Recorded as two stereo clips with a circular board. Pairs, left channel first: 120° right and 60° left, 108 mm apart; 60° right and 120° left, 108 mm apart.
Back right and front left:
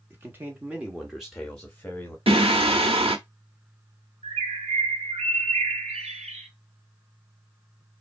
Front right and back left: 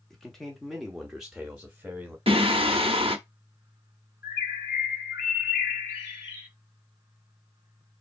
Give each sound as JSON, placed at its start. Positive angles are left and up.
{"t": 0.1, "sound": "a man speaking", "azimuth_deg": 25, "distance_m": 1.2}
{"t": 2.3, "sound": "singing", "azimuth_deg": 90, "distance_m": 0.8}
{"t": 4.2, "sound": "a bird", "azimuth_deg": 55, "distance_m": 1.8}